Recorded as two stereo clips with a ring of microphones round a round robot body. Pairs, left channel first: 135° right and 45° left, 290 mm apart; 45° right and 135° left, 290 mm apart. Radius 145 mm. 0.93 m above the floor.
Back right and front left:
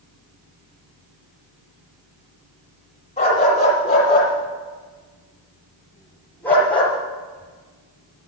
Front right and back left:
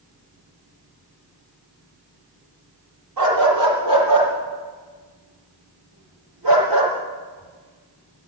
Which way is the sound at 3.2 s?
155° left.